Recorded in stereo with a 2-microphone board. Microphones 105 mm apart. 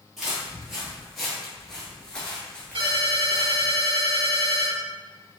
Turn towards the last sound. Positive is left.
turn(degrees=-55)  # may be behind; listen again after turning